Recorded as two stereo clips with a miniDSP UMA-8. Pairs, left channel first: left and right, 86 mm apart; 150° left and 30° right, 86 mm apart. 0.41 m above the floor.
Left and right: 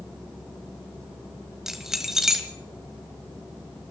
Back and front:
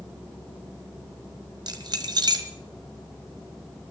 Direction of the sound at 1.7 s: 5° right.